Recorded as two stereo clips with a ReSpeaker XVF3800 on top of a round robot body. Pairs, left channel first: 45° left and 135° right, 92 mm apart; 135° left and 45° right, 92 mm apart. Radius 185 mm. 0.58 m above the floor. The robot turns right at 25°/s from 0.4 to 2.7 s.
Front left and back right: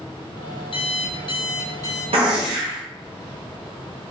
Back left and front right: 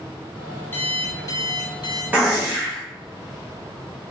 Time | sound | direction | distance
0.7 | an alarm clock | 65° left | 0.6 m
2.1 | a gunshot | 115° right | 0.9 m